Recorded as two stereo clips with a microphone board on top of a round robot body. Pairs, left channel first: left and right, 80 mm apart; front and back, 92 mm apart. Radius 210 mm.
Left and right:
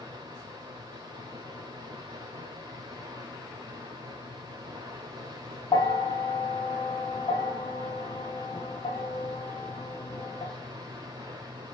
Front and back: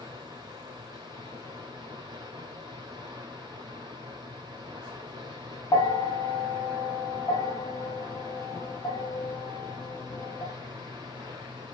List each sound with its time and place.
0.0 s running water: 140° right, 1.0 m
5.7 s a bell: 55° left, 0.7 m